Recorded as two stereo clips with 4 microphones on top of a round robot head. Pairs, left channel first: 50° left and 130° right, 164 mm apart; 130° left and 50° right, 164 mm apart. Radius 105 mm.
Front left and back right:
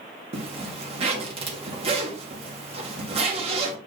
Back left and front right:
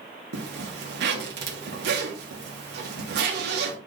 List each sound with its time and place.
0.3 s a zipper: 75° right, 1.7 m